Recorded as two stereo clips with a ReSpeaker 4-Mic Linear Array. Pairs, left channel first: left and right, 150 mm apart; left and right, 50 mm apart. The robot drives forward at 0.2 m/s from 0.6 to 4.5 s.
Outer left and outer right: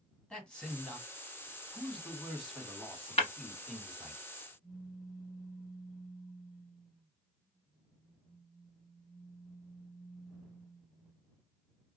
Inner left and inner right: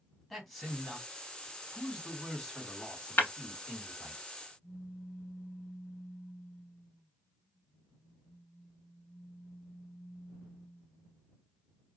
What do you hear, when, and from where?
0.3 s a man speaking: 5° left (ahead or behind), 1.5 m
3.2 s breaking glass: 45° left (ahead or behind), 1.0 m
4.6 s a pop: 40° left (ahead or behind), 1.6 m